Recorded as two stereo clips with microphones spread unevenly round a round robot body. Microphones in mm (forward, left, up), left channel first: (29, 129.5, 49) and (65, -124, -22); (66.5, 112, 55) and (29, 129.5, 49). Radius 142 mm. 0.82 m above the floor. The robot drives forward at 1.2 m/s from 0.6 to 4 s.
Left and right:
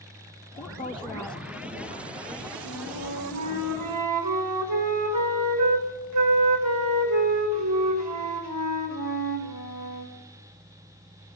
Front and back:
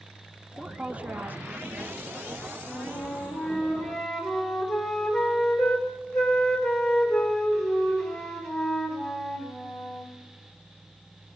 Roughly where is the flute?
Ahead right.